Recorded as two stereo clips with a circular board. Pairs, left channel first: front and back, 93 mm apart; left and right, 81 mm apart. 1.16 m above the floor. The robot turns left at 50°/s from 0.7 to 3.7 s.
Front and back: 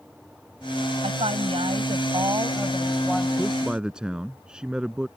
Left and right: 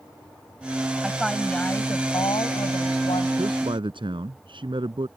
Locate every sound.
1.0 s a woman speaking: 170° right; by 3.3 s 80° left
3.4 s a man speaking: 85° right; by 5.1 s 100° right